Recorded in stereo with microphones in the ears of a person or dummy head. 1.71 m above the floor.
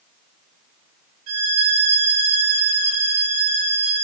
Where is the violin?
70° right (ahead or behind), 6 m.